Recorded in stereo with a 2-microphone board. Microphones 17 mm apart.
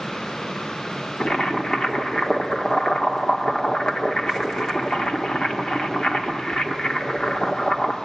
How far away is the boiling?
About 1.9 m.